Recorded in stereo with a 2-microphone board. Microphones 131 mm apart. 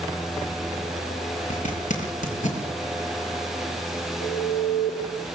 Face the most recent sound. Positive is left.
turn(degrees=55)  # may be behind; listen again after turning